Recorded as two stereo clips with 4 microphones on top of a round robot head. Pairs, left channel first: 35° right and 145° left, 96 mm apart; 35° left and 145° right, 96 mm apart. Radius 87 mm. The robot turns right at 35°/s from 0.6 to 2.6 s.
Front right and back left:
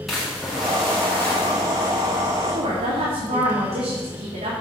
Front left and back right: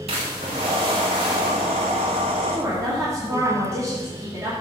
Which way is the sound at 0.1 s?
125° right.